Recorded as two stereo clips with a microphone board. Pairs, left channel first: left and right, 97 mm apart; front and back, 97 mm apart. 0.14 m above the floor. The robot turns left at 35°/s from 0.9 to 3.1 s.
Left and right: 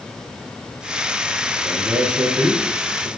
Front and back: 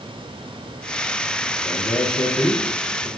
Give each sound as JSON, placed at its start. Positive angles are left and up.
{"t": 1.6, "sound": "a man speaking", "azimuth_deg": -20, "distance_m": 2.0}